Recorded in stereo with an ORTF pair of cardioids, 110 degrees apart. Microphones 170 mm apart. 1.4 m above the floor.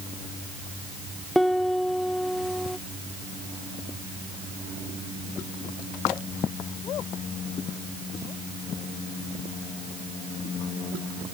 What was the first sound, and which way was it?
A piano, straight ahead.